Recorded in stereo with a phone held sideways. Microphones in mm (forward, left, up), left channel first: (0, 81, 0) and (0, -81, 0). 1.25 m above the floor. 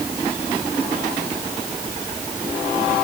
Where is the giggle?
I don't hear a giggle.